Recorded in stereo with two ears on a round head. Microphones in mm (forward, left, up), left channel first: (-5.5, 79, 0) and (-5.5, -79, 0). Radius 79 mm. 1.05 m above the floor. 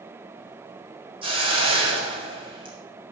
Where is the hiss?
30° right (ahead or behind), 4.5 m.